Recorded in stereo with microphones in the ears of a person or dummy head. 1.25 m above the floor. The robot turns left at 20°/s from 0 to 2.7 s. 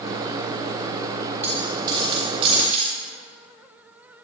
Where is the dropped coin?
10° right (ahead or behind), 4.5 m; by 2.9 s 40° right (ahead or behind), 4.5 m.